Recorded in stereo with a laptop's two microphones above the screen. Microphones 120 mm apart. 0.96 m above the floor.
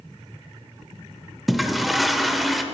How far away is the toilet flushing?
About 0.9 m.